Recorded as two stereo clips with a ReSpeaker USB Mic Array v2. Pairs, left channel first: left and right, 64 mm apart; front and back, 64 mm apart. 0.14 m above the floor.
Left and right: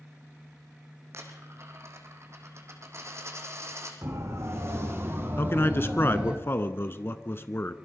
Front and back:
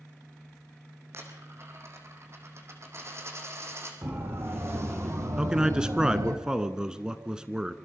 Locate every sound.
1.1 s a dropped coin: 135° right, 3.5 m
4.0 s a siren: 130° right, 6 m; by 6.4 s 165° right, 3.5 m
5.4 s a man speaking: 110° left, 1.3 m